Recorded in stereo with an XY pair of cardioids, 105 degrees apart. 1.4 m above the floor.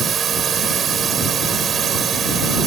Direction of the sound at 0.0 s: 50° right.